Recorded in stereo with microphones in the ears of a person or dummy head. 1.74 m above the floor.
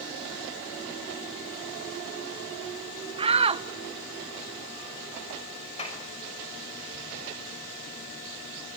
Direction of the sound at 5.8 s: 35° left (ahead or behind).